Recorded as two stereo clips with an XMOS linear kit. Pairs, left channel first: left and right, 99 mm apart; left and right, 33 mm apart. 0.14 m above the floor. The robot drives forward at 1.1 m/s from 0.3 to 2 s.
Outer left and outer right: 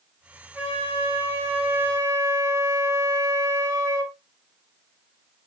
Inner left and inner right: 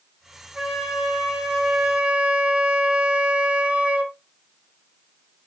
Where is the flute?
15° right (ahead or behind), 3.5 m; by 4.2 s 25° right (ahead or behind), 2 m.